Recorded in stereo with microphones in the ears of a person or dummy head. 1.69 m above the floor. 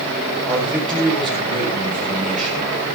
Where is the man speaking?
Centre (ahead or behind), 7 m.